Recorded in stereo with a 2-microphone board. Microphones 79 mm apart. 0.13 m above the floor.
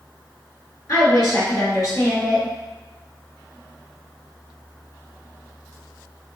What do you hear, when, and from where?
0.9 s a woman speaking: 45° left (ahead or behind), 1.9 m